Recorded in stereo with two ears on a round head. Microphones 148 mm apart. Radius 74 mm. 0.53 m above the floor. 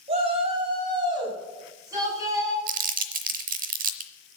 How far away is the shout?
About 3.5 m.